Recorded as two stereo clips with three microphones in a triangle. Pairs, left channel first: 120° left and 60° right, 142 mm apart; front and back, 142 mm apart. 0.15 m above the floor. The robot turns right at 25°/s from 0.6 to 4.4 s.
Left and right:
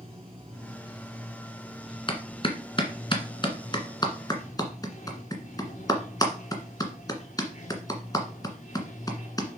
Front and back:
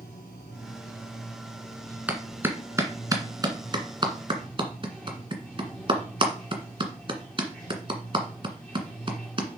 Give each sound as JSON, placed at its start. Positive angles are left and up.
{"t": 0.0, "sound": "running water", "azimuth_deg": -10, "distance_m": 4.0}
{"t": 2.1, "sound": "a clap", "azimuth_deg": 105, "distance_m": 1.7}